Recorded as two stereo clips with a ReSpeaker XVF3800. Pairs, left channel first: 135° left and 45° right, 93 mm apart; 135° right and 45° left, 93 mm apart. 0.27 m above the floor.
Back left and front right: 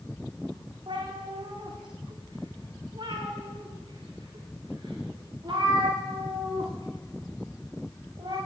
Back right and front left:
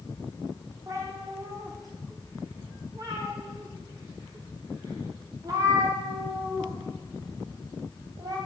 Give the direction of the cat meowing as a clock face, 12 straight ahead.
12 o'clock.